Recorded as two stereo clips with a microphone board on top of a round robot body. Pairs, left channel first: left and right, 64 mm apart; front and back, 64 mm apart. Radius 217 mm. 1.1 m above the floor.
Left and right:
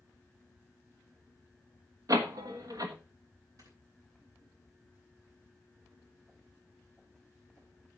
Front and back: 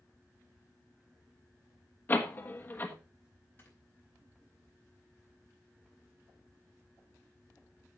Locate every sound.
2.1 s a door slam: 60° right, 1.4 m
3.6 s snoring: 60° right, 4.5 m